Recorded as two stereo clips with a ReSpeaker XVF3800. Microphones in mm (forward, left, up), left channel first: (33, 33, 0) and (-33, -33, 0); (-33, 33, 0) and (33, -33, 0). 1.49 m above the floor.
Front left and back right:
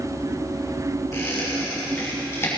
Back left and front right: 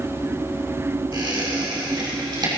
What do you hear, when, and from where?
1.1 s a squeak: 15° right, 5.5 m